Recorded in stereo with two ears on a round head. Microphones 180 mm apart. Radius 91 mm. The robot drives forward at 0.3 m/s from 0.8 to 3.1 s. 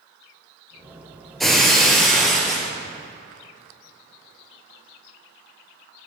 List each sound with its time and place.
1.4 s breaking glass: centre (ahead or behind), 1.4 m